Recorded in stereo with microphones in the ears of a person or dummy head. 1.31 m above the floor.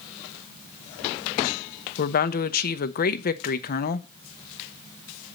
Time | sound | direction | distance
2.0 | a woman speaking | 50° left (ahead or behind) | 0.6 m